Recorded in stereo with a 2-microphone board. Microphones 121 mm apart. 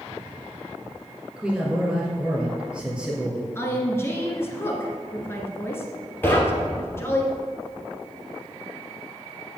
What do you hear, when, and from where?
1.4 s a man speaking: 10° right (ahead or behind), 2.5 m
3.5 s a woman speaking: 20° left (ahead or behind), 1.7 m
6.2 s knocking: 15° left (ahead or behind), 2 m